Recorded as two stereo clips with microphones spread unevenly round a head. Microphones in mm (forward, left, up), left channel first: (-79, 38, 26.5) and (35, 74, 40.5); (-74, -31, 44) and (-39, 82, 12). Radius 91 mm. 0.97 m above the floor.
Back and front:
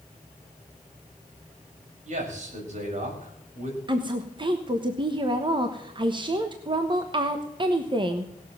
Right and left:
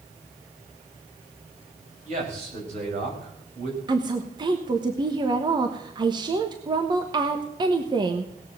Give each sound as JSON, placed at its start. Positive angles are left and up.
{"t": 2.0, "sound": "a man speaking", "azimuth_deg": 35, "distance_m": 5.5}
{"t": 3.9, "sound": "a woman speaking", "azimuth_deg": 60, "distance_m": 1.2}